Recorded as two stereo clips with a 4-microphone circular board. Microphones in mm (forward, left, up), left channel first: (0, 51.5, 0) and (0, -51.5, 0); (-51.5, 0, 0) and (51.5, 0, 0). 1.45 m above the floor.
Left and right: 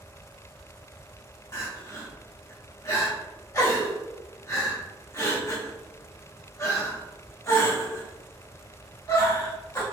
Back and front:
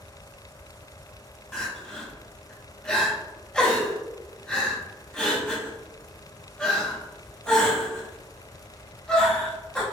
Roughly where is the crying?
Left.